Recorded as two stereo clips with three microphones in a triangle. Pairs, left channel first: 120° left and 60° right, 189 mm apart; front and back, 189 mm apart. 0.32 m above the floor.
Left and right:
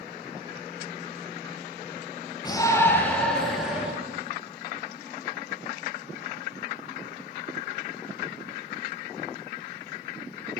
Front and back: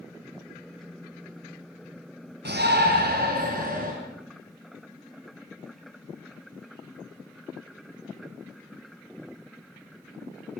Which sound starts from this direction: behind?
A shout, at 2.5 s.